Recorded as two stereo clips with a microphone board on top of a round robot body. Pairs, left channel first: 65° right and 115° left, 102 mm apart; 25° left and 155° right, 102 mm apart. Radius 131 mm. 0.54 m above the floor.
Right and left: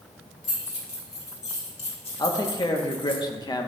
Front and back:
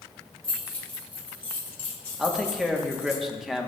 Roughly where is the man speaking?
Right.